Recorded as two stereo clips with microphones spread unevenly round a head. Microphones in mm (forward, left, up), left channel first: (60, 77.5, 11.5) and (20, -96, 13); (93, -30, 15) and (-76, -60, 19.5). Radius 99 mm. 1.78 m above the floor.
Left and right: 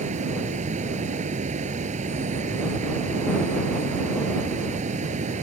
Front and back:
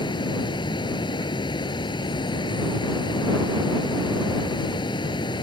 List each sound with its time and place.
0.0 s running water: 55° right